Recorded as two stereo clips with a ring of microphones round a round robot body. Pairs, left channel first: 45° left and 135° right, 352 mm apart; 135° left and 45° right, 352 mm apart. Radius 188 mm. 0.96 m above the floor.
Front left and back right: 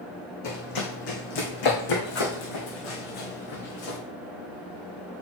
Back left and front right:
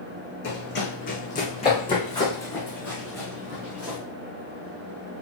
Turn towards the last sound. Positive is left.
turn(degrees=40)